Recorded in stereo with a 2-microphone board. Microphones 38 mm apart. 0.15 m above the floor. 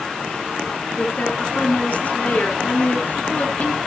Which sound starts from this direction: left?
A woman speaking, at 1.0 s.